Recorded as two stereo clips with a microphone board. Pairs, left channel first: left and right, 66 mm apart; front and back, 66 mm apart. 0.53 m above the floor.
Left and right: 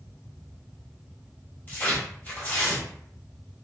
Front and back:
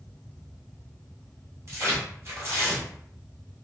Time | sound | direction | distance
1.7 | tearing paper | 145° left | 0.9 m